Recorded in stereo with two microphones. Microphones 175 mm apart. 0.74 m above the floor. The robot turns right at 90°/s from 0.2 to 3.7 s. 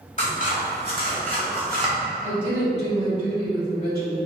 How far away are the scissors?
About 1.4 m.